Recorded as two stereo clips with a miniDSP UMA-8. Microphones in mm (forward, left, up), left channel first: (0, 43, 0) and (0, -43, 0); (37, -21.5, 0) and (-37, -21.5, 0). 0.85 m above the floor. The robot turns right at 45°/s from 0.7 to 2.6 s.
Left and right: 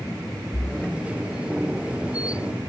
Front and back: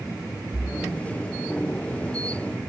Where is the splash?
135° left, 7.5 m; by 1.0 s 145° left, 7.5 m.